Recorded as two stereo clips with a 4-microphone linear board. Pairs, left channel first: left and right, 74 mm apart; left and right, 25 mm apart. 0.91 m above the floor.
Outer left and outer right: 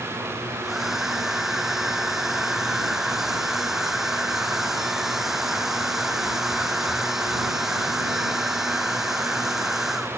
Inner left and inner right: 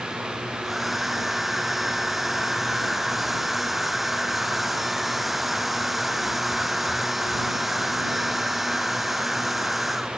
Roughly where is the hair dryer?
Centre.